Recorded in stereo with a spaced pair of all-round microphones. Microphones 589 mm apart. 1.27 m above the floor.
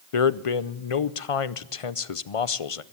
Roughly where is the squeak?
I don't hear a squeak.